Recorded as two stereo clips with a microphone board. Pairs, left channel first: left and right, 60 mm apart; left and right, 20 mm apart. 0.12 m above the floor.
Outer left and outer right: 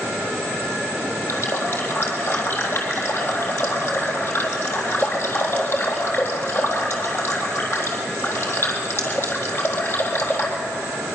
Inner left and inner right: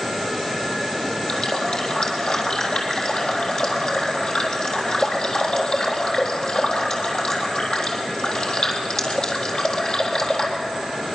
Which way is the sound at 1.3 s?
50° left (ahead or behind).